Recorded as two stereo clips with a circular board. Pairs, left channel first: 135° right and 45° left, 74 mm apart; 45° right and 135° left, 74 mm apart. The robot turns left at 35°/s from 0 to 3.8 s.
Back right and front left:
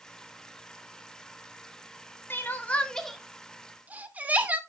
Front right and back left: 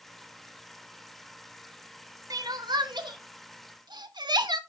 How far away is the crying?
About 0.8 m.